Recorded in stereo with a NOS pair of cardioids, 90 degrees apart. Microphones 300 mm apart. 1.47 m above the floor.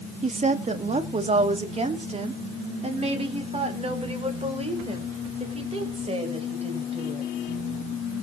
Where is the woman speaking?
25° right, 1.7 m; by 7.3 s 20° right, 6 m.